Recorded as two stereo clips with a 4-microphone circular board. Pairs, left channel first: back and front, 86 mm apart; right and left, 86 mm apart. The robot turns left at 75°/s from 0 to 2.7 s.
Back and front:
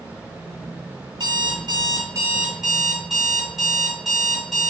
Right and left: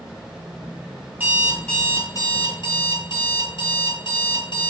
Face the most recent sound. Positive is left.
turn(degrees=-90)